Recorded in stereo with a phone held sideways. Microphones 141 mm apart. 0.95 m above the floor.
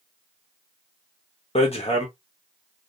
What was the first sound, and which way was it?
Hammering, 45° left (ahead or behind).